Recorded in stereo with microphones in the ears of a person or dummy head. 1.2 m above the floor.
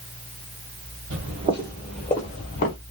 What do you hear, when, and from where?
1.1 s footsteps: 40° right (ahead or behind), 1.8 m; by 2.8 s 40° left (ahead or behind), 1.5 m